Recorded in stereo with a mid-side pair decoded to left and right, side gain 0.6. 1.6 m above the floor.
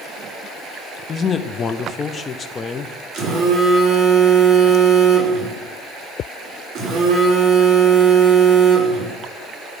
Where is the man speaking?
30° left, 0.6 m.